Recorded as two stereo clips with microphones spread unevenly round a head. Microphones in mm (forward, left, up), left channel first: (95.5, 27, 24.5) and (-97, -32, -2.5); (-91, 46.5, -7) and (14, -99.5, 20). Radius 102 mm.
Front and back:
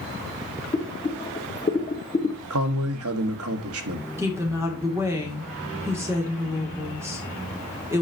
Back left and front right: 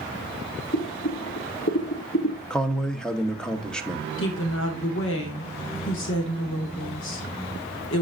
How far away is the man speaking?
About 1.2 m.